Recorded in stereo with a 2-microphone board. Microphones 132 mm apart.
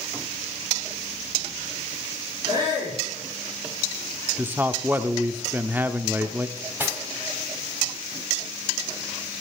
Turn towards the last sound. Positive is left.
turn(degrees=-15)  # may be behind; listen again after turning